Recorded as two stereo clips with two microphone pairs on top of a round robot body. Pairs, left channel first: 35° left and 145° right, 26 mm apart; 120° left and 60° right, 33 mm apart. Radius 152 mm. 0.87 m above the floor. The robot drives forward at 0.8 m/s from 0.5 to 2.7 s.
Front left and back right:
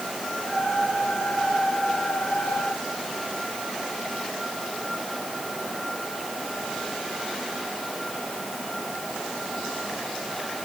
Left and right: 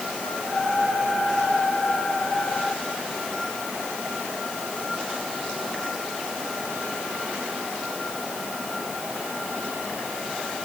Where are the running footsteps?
No running footsteps in this recording.